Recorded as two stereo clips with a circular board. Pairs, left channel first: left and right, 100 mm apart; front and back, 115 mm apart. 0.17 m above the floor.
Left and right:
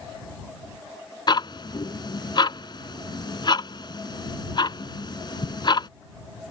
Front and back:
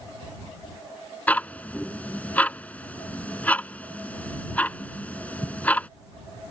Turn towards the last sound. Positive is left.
turn(degrees=75)